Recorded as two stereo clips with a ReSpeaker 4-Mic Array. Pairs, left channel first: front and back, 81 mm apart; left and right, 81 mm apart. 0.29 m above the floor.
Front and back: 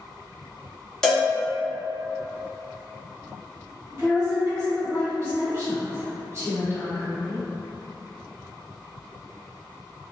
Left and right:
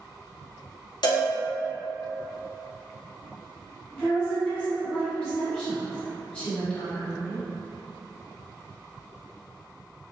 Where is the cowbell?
85° left, 0.8 m.